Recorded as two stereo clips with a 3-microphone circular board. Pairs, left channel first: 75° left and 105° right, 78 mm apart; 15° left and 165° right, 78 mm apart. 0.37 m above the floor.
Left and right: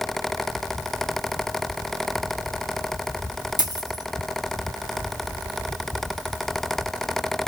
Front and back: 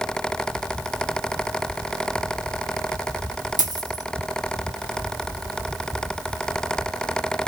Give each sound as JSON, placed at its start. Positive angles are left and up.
{"t": 3.6, "sound": "a dropped coin", "azimuth_deg": -135, "distance_m": 1.1}